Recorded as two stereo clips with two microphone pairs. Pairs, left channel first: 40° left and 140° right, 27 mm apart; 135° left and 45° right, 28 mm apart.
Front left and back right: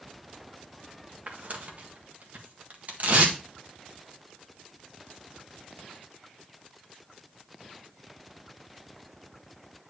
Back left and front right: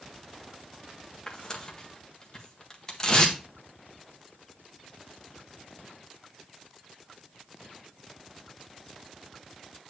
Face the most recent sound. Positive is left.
turn(degrees=-155)